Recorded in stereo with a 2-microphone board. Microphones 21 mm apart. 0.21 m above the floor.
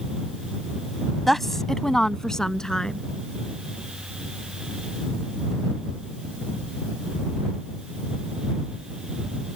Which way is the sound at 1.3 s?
5° left (ahead or behind).